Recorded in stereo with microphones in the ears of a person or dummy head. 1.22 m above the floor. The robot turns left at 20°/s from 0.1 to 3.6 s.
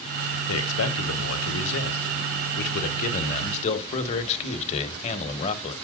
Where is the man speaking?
100° left, 1.3 m; by 5.8 s 35° left, 1.3 m.